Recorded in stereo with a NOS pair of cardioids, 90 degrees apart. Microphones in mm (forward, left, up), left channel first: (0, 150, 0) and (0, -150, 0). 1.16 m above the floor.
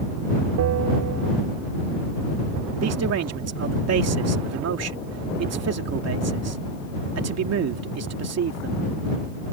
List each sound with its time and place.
0.6 s a bell: 70° right
2.8 s a man speaking: 55° right